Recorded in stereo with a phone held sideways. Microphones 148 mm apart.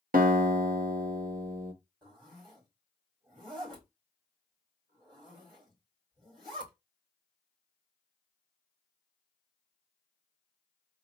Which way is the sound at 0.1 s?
70° right (ahead or behind).